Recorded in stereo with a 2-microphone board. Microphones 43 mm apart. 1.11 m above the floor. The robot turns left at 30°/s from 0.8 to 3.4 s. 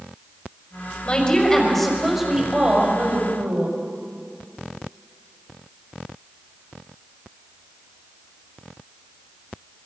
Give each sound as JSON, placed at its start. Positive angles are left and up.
{"t": 1.1, "sound": "a woman speaking", "azimuth_deg": 25, "distance_m": 4.5}